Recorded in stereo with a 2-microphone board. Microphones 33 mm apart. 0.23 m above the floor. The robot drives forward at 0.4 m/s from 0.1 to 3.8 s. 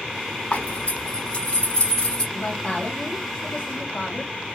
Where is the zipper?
45° left (ahead or behind), 1.0 m; by 2.2 s 30° left (ahead or behind), 1.5 m.